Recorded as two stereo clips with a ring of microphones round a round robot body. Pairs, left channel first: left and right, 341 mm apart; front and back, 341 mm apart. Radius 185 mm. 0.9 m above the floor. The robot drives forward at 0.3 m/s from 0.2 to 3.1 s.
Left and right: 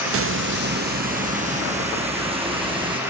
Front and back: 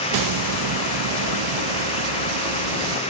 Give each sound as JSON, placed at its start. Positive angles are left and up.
{"t": 0.1, "sound": "a hiss", "azimuth_deg": -145, "distance_m": 0.5}